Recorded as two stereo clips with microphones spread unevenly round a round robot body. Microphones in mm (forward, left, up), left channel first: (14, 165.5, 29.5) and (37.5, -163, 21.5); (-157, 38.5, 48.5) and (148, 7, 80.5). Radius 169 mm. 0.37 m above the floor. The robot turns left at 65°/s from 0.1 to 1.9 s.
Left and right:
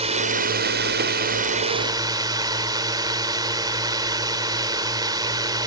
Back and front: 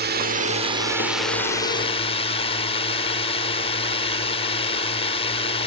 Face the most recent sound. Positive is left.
turn(degrees=-150)